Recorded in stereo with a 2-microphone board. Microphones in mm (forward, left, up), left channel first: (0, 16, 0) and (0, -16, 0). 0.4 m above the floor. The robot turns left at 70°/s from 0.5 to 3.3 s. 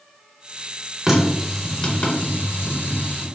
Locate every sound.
1.1 s a running tap: 15° right (ahead or behind), 0.7 m; by 3.2 s 35° left (ahead or behind), 0.7 m